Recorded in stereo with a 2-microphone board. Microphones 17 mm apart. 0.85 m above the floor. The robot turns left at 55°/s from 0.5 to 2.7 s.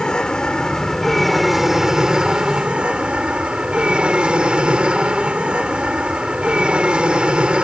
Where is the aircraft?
50° left; by 7.6 s 70° right.